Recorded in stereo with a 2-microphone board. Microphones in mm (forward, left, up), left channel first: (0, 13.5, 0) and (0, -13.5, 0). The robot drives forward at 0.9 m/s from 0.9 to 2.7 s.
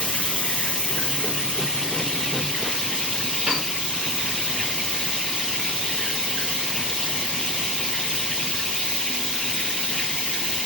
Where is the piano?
20° right (ahead or behind), 5.5 m.